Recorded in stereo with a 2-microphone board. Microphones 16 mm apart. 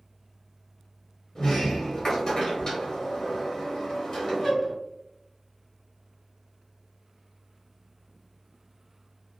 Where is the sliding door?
40° left (ahead or behind), 1.1 m.